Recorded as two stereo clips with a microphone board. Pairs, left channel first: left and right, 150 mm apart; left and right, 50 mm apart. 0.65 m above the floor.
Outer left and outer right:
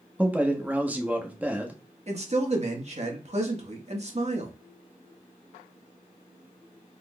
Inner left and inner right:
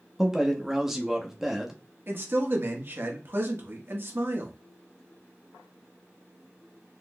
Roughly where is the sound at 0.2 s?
Centre.